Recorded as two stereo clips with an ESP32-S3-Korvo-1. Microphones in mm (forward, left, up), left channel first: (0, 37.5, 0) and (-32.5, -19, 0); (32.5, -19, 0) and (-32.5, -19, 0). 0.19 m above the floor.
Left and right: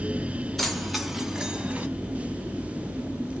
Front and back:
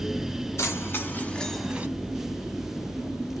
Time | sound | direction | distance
0.6 | keys jangling | 25° right | 1.6 m